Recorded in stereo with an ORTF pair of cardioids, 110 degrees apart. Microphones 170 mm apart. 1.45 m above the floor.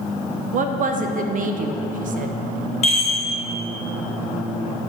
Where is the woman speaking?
50° right, 0.8 m.